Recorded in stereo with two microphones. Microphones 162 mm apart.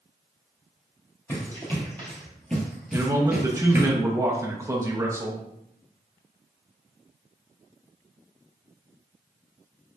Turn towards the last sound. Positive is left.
turn(degrees=-20)  # may be behind; listen again after turning